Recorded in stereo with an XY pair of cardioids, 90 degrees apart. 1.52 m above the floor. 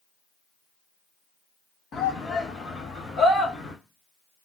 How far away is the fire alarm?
I don't hear a fire alarm.